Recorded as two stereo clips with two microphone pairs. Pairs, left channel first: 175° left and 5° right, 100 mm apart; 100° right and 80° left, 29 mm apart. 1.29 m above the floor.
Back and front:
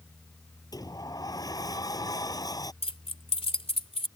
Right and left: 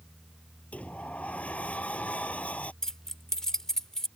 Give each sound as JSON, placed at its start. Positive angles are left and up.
{"t": 0.7, "sound": "a sliding door", "azimuth_deg": -135}
{"t": 2.8, "sound": "keys jangling", "azimuth_deg": -170}